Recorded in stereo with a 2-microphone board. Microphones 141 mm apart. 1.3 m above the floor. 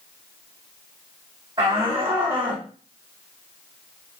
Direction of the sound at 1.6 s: 35° right (ahead or behind).